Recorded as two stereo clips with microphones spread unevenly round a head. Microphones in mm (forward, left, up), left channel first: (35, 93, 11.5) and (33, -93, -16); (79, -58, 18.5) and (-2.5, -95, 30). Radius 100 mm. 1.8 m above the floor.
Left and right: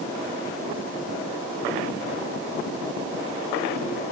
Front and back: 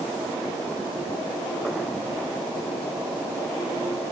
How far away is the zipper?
I don't hear a zipper.